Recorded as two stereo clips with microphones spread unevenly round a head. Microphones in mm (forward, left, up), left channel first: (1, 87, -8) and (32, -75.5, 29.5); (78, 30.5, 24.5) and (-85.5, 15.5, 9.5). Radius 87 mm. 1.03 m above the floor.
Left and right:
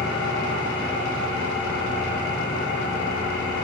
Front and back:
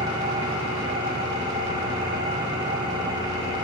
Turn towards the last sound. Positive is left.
turn(degrees=120)